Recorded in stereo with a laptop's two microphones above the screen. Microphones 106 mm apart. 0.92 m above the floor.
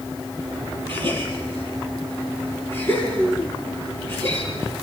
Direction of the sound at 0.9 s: 20° left (ahead or behind).